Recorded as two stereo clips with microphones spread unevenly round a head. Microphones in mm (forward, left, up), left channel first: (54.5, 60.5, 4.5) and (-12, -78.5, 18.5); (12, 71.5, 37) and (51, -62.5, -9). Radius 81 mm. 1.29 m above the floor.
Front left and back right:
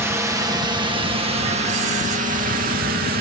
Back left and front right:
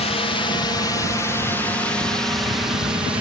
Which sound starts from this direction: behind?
A drone, at 0.0 s.